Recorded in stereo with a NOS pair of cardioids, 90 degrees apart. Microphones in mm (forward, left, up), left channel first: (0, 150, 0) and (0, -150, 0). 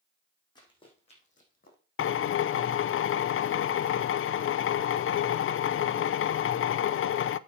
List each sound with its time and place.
0.6 s running footsteps: 15° left, 5 m; by 1.8 s 35° left, 4 m
2.0 s a drill: 45° left, 0.5 m